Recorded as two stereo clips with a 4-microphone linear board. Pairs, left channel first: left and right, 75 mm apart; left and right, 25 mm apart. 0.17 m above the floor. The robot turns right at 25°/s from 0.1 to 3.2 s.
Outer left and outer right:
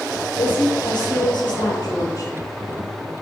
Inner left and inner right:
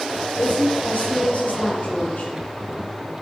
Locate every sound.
0.4 s a woman speaking: 75° left, 5.5 m; by 2.3 s 125° left, 5.5 m